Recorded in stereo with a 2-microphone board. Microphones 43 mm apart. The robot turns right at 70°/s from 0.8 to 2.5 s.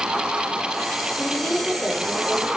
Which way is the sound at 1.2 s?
165° left.